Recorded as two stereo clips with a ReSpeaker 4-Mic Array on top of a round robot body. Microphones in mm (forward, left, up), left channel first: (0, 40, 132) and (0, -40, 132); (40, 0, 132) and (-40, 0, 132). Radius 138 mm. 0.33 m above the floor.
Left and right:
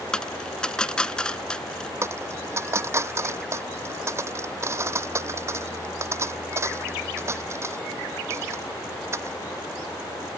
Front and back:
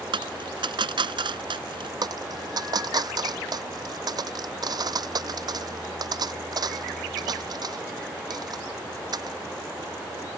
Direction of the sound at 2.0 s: 145° right.